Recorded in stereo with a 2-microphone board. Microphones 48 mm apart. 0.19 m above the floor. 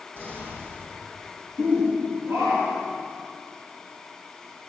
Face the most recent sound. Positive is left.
turn(degrees=-65)  # may be behind; listen again after turning